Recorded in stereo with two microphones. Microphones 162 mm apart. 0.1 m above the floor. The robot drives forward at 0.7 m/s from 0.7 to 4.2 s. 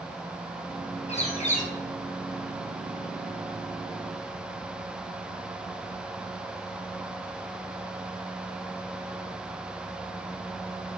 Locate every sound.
1.1 s a bird: 40° left (ahead or behind), 2 m; by 1.7 s 50° left (ahead or behind), 1.8 m